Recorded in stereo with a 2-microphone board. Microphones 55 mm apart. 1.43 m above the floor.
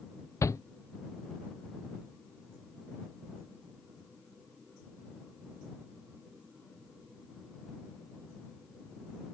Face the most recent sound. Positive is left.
turn(degrees=70)  # may be behind; listen again after turning